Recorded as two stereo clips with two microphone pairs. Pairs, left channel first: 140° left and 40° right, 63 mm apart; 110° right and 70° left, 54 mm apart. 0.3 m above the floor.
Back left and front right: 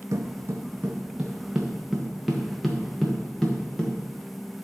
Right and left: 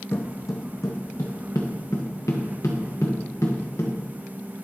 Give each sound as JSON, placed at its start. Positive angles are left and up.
{"t": 0.1, "sound": "footsteps", "azimuth_deg": -75, "distance_m": 0.7}